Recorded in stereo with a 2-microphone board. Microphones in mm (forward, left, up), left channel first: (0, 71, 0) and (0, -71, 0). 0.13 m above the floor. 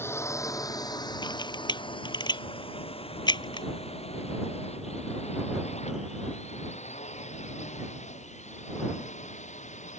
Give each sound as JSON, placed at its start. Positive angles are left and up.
{"t": 0.0, "sound": "a drone", "side_deg": 15}
{"t": 1.2, "sound": "a camera shutter", "side_deg": 30}